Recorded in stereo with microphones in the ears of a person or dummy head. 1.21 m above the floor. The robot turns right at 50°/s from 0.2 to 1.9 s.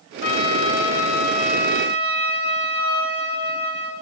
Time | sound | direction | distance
0.2 | a trumpet | 65° left | 2.5 m